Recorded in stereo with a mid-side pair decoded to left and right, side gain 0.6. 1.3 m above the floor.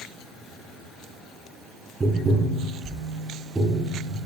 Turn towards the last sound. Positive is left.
turn(degrees=-20)